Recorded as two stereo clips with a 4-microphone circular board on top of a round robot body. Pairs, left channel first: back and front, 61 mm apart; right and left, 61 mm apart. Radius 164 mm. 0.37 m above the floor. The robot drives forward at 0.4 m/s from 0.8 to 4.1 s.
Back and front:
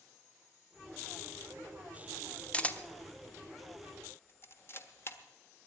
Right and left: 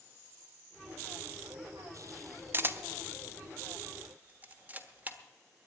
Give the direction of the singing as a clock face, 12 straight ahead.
I don't hear singing.